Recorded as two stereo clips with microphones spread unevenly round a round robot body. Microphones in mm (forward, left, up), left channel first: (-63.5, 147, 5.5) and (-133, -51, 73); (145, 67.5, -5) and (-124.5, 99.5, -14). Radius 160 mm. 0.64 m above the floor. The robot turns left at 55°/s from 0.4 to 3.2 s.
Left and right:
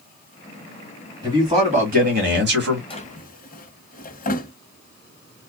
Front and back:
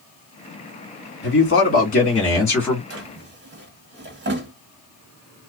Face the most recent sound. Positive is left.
turn(degrees=125)